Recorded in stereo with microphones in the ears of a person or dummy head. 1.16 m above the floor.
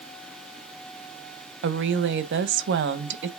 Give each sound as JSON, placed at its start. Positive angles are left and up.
{"t": 1.6, "sound": "a woman speaking", "side_deg": -65, "distance_m": 0.9}